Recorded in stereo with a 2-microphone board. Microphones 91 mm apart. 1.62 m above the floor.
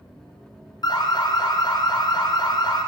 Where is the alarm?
50° left (ahead or behind), 0.8 m.